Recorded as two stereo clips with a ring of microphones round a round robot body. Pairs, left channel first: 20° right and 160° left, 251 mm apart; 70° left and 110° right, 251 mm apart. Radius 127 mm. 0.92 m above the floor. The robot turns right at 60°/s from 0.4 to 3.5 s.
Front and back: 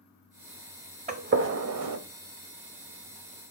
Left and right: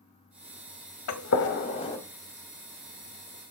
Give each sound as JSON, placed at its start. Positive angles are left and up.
{"t": 1.1, "sound": "a gunshot", "azimuth_deg": 95, "distance_m": 0.8}